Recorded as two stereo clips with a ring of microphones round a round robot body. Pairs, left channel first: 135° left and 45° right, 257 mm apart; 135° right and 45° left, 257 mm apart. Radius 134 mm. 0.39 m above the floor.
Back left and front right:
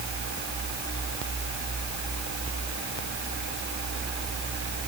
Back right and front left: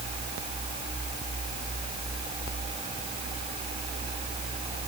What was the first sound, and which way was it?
Only background noise.